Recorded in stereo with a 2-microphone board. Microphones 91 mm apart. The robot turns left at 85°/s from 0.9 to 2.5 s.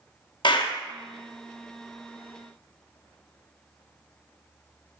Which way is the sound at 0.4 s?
55° left (ahead or behind).